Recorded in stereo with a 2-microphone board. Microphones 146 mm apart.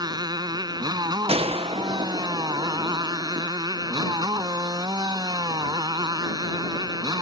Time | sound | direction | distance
0.0 | a motorcycle | 30° right (ahead or behind) | ?
1.3 | a gunshot | 40° right (ahead or behind) | ?